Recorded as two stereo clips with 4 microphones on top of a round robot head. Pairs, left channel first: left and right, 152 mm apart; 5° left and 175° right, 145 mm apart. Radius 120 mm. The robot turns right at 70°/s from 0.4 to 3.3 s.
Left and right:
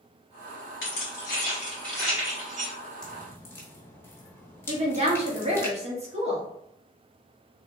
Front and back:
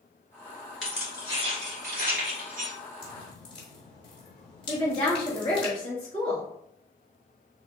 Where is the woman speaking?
45° right, 1.5 m.